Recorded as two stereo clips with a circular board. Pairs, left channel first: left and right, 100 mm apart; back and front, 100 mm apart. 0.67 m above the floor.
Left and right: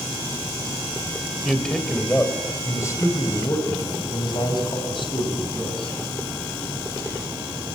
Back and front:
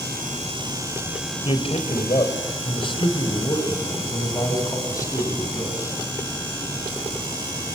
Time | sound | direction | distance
1.4 | a man speaking | straight behind | 3.5 m